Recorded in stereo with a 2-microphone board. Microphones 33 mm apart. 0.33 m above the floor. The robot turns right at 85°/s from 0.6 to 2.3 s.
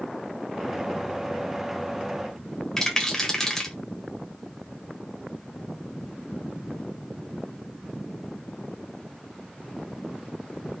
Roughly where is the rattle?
Centre.